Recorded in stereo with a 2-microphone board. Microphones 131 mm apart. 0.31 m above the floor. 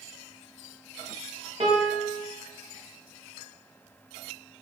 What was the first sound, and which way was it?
A piano, 50° right (ahead or behind).